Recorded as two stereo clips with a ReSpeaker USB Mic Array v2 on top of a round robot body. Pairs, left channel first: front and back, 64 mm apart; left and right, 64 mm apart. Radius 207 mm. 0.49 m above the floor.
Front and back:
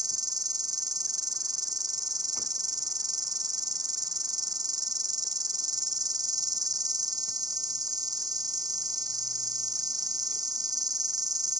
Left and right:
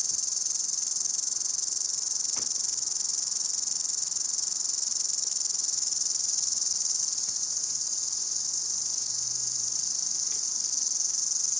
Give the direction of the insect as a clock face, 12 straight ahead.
6 o'clock.